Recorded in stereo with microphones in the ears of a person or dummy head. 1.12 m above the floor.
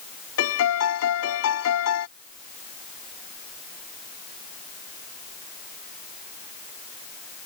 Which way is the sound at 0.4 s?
80° left.